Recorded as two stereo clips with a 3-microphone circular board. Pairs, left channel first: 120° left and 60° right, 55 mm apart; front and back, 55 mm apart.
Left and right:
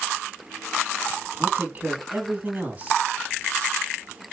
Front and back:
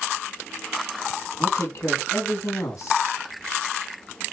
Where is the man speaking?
Straight ahead, 3 m.